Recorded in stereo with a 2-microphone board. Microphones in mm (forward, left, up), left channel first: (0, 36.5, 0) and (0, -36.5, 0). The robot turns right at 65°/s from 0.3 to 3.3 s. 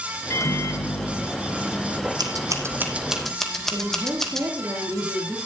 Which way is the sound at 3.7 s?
35° right (ahead or behind).